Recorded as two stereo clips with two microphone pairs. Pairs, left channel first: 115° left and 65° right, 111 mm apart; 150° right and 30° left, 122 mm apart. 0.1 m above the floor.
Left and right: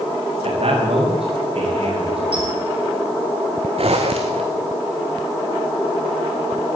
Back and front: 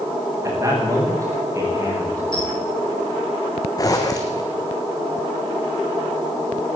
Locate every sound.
0.4 s a man speaking: 35° right, 9 m
2.3 s a squeak: 100° right, 5.5 m
3.8 s a zipper: 90° right, 3 m